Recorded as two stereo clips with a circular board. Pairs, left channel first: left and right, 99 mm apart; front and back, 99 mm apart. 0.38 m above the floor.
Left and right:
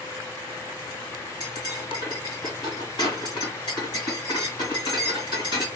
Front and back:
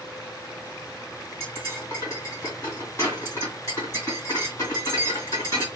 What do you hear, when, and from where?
1.4 s cutlery clinking: 55° left, 1.6 m